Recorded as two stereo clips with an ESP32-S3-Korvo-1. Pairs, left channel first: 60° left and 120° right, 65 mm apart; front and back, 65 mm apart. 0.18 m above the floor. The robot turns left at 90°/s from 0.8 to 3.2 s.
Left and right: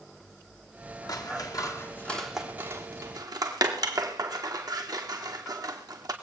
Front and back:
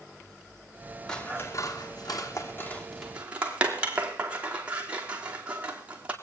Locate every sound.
1.1 s scissors: 80° left, 2 m; by 6.1 s 110° right, 2 m